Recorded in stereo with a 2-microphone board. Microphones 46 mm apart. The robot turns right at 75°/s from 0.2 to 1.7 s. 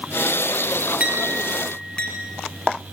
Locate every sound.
1.0 s a clink: 30° right (ahead or behind), 5 m; by 2.1 s 25° left (ahead or behind), 5 m